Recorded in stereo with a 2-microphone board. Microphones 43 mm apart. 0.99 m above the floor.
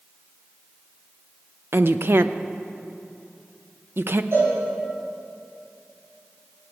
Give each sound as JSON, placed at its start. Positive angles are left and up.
{"t": 1.7, "sound": "a woman speaking", "side_deg": -55, "distance_m": 0.6}
{"t": 4.3, "sound": "a cowbell", "side_deg": -60, "distance_m": 5.0}